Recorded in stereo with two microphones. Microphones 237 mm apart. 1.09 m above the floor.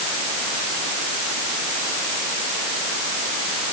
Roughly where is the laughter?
No laughter in this recording.